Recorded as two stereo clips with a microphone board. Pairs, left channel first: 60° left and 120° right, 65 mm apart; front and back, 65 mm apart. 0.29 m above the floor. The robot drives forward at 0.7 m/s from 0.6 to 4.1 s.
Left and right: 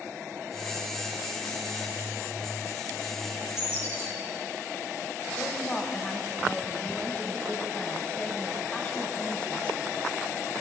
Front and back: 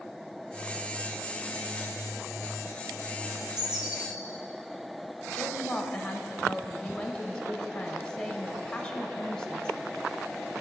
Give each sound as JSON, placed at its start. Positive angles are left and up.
{"t": 3.3, "sound": "a bird", "azimuth_deg": 100, "distance_m": 2.5}
{"t": 5.3, "sound": "a woman speaking", "azimuth_deg": 45, "distance_m": 1.0}